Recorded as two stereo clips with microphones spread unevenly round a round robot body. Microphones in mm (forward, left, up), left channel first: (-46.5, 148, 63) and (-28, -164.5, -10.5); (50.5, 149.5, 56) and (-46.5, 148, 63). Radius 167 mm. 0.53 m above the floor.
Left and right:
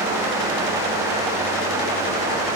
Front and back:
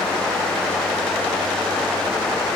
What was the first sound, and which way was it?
Only background noise.